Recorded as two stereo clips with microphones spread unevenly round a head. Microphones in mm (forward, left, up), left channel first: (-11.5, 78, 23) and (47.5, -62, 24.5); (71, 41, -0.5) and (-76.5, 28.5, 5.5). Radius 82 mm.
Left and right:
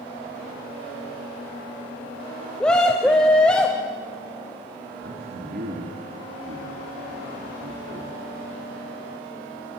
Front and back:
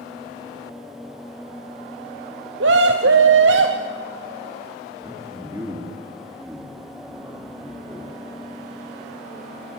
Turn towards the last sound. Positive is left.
turn(degrees=-100)